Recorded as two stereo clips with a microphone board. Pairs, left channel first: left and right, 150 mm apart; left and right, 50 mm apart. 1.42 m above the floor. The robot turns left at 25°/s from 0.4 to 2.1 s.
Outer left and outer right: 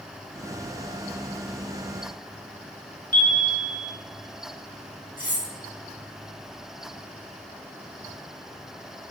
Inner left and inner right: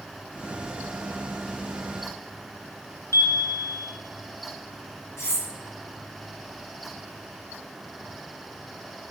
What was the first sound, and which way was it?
A chime, 65° left (ahead or behind).